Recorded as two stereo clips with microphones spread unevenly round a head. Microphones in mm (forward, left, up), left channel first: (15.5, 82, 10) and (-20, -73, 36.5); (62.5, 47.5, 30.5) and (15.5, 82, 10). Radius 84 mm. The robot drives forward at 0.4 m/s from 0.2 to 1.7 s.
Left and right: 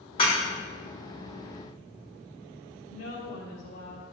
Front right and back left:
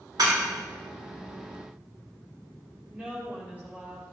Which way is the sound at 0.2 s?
140° left.